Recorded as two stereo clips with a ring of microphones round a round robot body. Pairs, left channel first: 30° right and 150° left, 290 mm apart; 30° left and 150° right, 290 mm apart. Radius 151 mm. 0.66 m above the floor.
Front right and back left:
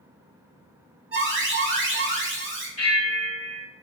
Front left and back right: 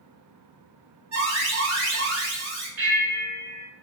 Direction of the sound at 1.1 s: 170° right.